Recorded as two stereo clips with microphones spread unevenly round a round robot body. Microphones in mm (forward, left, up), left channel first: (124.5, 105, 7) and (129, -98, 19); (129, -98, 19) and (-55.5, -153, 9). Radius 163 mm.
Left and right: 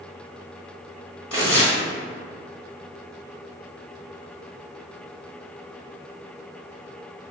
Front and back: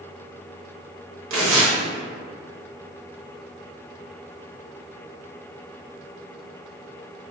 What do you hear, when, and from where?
1.3 s tearing paper: straight behind, 0.6 m